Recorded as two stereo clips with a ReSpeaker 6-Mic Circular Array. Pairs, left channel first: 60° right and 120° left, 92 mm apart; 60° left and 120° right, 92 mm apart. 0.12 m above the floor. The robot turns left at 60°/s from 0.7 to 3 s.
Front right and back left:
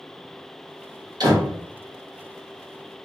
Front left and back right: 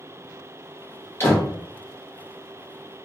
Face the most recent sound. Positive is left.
turn(degrees=5)